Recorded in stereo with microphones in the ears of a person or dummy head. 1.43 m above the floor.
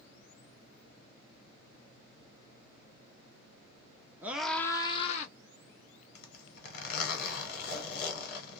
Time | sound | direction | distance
4.2 | a scream | 15° right (ahead or behind) | 0.8 m
6.2 | a zipper | 60° left (ahead or behind) | 1.2 m